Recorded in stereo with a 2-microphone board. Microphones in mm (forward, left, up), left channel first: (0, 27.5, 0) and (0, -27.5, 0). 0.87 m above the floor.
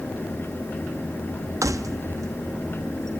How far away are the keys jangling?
About 0.5 m.